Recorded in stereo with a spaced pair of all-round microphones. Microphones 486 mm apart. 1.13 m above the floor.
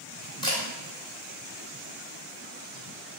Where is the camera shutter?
10° left (ahead or behind), 1.5 m.